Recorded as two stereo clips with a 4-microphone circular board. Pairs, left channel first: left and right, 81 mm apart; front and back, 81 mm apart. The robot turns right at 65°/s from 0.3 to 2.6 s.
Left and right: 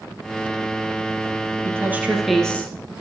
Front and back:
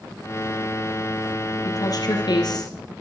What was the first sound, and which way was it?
A woman speaking, 40° right.